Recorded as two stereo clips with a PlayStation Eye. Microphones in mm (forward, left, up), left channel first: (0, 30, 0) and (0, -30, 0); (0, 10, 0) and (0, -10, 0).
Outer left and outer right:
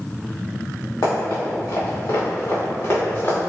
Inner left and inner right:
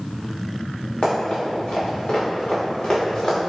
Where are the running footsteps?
85° left, 1.3 m; by 3.4 s 40° left (ahead or behind), 1.7 m.